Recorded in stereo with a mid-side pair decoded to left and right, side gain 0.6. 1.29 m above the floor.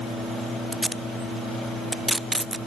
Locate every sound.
0.7 s tape being pulled: 5° right, 0.7 m